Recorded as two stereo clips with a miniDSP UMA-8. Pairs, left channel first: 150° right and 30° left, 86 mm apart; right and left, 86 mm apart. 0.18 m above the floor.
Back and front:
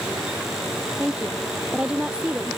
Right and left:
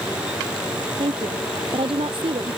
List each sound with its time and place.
1.0 s a woman speaking: 105° left